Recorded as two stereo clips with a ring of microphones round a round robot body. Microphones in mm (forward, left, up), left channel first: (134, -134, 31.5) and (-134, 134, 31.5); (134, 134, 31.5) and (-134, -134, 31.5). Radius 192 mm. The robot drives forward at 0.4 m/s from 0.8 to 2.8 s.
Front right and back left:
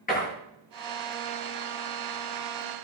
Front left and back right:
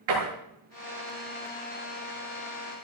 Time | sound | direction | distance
0.1 | a door slam | 115° right | 9.5 m